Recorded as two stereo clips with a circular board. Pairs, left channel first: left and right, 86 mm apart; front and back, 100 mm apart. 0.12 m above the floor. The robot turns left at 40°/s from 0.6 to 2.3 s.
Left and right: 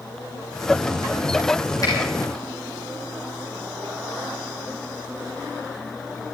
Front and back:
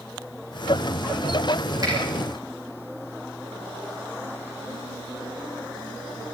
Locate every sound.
1.8 s a finger snap: 130° left, 6 m; by 1.9 s 125° left, 6 m